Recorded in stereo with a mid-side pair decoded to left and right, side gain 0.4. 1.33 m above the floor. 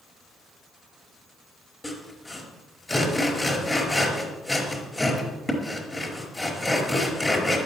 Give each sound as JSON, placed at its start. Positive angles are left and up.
{"t": 1.8, "sound": "sawing", "azimuth_deg": 15, "distance_m": 4.5}